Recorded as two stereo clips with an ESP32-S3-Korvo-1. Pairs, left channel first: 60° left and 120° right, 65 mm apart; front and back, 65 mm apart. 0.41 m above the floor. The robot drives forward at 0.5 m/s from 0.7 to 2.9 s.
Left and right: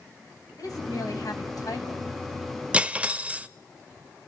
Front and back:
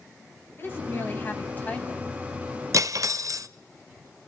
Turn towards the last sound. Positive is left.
turn(degrees=175)